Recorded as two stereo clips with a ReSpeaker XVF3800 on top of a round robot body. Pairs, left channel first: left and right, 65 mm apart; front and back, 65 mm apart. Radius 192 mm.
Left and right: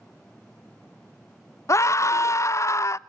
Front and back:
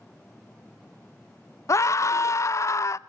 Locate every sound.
1.7 s a scream: 40° left, 0.7 m